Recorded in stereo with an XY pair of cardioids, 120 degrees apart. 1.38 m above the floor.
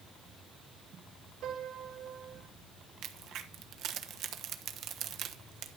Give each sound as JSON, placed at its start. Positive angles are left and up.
{"t": 1.4, "sound": "a piano", "azimuth_deg": -65, "distance_m": 3.5}
{"t": 3.0, "sound": "a crack", "azimuth_deg": -65, "distance_m": 1.1}